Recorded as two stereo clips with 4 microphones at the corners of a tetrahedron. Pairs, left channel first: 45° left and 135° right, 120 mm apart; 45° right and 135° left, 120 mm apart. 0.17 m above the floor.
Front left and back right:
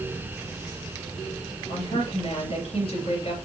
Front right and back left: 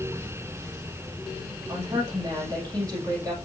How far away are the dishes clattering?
I don't hear dishes clattering.